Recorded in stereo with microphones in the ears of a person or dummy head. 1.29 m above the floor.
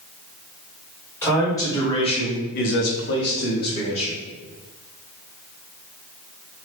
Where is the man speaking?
10° left (ahead or behind), 1.4 m; by 4.2 s 40° left (ahead or behind), 1.2 m.